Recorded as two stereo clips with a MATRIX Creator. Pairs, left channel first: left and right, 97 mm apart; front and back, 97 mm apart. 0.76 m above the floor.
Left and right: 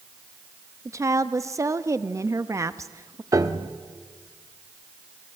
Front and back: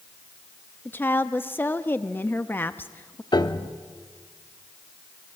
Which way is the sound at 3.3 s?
40° right.